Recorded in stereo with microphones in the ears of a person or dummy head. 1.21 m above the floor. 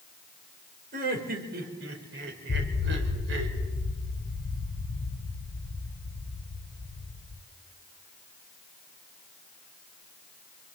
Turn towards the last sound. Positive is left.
turn(degrees=50)  # may be behind; listen again after turning